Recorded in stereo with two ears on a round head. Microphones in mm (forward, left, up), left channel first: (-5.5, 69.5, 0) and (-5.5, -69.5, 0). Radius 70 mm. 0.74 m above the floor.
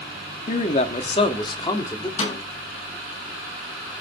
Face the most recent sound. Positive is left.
turn(degrees=40)  # may be behind; listen again after turning